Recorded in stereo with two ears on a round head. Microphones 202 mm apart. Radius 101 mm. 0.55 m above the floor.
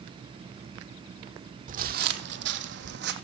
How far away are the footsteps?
About 0.8 m.